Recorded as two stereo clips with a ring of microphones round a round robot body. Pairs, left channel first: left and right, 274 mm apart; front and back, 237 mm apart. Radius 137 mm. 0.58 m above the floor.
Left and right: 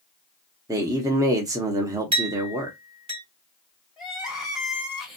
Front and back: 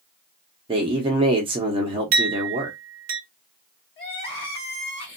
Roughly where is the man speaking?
Behind right.